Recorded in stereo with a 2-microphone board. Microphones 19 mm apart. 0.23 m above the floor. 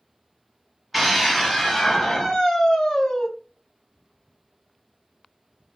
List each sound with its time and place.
0.9 s a scream: 5° right (ahead or behind), 1.6 m; by 3.3 s 45° left (ahead or behind), 2 m